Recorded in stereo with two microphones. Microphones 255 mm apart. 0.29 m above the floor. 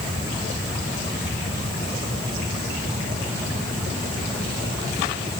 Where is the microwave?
I don't hear a microwave.